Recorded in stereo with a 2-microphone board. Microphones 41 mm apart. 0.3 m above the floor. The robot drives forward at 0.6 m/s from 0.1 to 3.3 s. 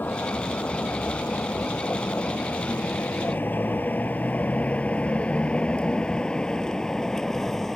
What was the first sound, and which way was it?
A vehicle, 50° left (ahead or behind).